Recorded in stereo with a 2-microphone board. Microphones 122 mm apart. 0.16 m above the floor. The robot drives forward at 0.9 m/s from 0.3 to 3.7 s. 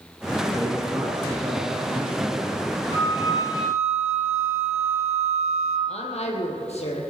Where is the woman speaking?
60° left (ahead or behind), 4 m.